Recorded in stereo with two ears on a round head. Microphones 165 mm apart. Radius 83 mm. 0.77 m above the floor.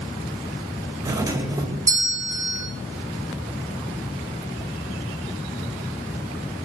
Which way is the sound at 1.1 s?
20° right (ahead or behind).